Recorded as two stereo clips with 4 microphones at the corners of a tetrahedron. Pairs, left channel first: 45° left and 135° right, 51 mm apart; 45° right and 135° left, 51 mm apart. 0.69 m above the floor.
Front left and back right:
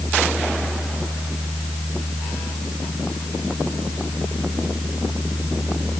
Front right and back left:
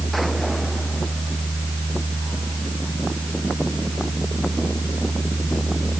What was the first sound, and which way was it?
Only background noise.